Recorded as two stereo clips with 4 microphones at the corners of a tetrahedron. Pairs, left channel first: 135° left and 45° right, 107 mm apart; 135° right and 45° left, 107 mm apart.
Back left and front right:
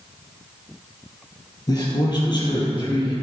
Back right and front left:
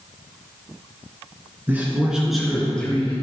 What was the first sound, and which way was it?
A man speaking, 110° left.